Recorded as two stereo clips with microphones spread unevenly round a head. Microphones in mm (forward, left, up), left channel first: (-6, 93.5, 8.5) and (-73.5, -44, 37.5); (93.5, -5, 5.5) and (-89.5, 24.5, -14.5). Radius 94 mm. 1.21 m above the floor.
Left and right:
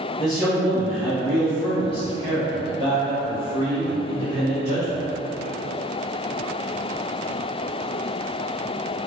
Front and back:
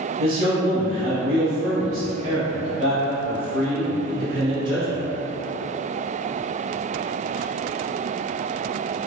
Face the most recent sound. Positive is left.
turn(degrees=105)